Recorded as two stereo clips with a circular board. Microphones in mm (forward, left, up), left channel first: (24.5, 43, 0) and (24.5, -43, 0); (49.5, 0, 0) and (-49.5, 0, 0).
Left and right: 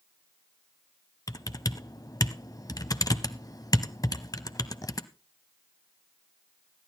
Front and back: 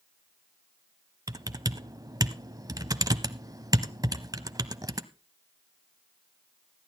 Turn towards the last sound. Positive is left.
turn(degrees=130)